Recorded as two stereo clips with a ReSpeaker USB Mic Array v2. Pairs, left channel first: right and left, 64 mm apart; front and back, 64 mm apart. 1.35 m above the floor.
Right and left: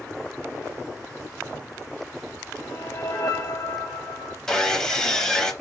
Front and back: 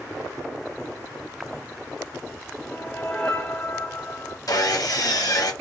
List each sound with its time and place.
2.6 s a whoosh: 80° right, 1.1 m
4.5 s sawing: 10° right, 0.9 m